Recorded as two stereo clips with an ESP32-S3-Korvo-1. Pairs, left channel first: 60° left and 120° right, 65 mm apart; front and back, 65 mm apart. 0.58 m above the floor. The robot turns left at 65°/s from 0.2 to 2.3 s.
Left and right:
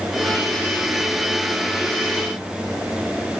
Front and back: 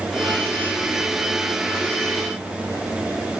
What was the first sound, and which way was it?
Only background noise.